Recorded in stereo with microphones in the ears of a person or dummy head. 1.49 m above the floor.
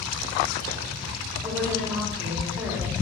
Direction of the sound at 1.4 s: 15° right (ahead or behind).